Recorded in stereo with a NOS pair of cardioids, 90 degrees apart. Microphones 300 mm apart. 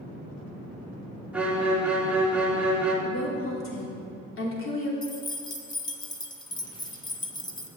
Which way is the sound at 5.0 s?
15° left.